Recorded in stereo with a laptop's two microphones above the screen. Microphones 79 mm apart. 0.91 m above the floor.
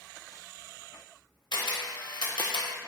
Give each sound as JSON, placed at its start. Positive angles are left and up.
{"t": 1.5, "sound": "a camera shutter", "side_deg": 75, "distance_m": 0.7}